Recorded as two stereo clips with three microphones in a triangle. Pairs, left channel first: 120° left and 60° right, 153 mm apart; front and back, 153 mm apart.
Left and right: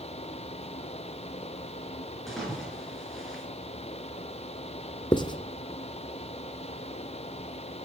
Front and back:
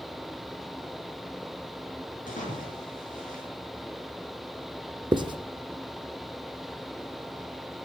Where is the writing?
150° left, 0.9 m.